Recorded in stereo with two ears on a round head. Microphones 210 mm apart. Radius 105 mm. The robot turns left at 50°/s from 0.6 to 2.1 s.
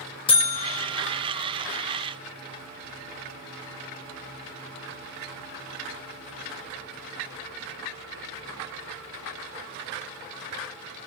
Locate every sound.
0.3 s a buzzer: 25° left (ahead or behind), 0.7 m; by 0.9 s 35° left (ahead or behind), 0.7 m